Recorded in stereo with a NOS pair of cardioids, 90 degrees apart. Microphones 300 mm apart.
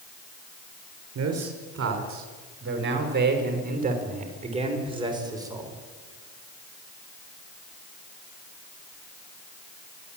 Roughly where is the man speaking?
Ahead right.